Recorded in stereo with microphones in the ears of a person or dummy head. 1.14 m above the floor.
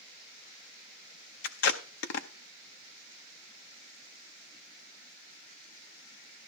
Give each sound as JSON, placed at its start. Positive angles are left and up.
{"t": 1.4, "sound": "tape being pulled", "side_deg": 65, "distance_m": 0.7}